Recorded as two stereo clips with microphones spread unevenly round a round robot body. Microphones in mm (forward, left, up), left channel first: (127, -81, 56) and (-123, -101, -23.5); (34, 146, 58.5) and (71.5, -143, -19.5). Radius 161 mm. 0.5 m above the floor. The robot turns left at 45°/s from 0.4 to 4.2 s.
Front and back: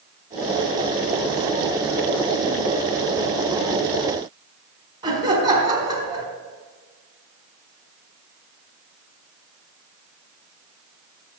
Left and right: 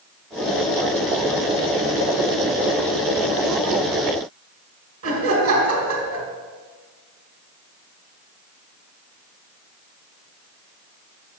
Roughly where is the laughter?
Behind right.